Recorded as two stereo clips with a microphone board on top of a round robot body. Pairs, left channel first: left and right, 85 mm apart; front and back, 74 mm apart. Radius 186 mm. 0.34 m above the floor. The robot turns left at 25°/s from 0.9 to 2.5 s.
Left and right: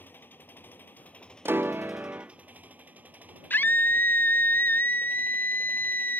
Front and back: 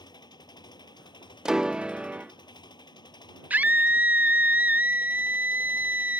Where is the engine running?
20° left; by 6.2 s 20° right.